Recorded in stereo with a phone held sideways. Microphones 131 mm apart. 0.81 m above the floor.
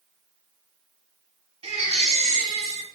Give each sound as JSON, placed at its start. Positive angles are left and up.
{"t": 1.6, "sound": "a baby crying", "side_deg": -50, "distance_m": 3.0}